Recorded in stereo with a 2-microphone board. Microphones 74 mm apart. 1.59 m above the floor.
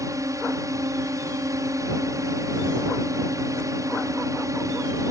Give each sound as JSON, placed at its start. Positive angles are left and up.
{"t": 0.0, "sound": "a drone", "side_deg": -50}